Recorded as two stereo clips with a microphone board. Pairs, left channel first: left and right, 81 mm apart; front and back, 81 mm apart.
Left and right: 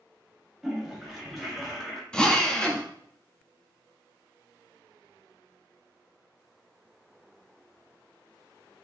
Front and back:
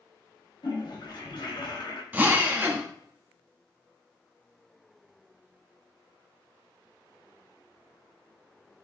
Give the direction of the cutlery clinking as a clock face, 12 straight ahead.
No cutlery clinking in this recording.